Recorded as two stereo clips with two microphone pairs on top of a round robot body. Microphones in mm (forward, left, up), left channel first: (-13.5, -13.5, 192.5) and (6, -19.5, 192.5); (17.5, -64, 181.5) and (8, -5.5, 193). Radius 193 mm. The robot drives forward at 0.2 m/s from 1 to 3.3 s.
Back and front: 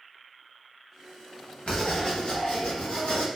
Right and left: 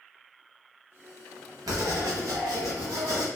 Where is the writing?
120° left, 0.8 m; by 3.2 s 135° left, 1.0 m.